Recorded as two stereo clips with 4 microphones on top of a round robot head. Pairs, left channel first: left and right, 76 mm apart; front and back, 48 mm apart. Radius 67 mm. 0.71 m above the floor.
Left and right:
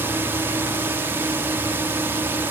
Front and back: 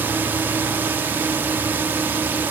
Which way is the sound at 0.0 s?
145° right.